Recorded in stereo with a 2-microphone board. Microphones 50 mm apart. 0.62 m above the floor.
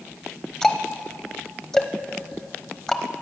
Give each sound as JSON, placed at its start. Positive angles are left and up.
{"t": 0.6, "sound": "ticking", "side_deg": 10, "distance_m": 0.9}